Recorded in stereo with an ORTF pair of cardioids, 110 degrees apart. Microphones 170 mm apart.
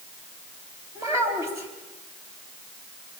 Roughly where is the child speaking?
Ahead.